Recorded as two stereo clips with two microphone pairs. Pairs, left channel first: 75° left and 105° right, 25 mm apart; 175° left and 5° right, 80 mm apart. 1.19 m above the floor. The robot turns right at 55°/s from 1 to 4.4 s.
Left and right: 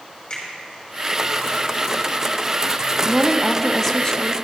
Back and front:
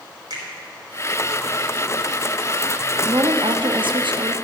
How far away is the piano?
No piano in this recording.